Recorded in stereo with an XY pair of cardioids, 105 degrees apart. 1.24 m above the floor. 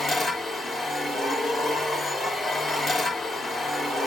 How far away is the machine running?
About 3 m.